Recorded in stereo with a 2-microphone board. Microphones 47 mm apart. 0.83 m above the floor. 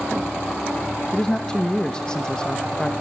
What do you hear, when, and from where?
1.1 s a man speaking: 15° left (ahead or behind), 1.0 m